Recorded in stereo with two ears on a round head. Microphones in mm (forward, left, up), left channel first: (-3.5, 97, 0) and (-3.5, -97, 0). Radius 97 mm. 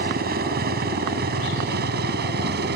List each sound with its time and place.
0.0 s a helicopter: 45° right (ahead or behind); by 2.8 s 50° right (ahead or behind)